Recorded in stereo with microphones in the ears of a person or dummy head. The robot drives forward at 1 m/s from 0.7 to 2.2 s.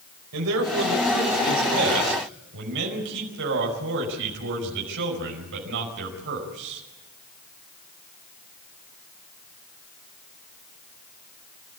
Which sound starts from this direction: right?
A man speaking, at 0.3 s.